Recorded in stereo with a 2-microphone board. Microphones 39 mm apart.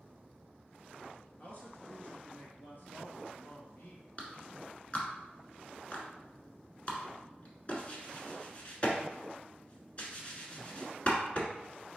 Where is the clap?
35° left (ahead or behind), 1.2 m.